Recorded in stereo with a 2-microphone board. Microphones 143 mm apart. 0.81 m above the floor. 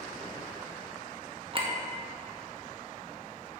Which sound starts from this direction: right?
A clink, at 1.5 s.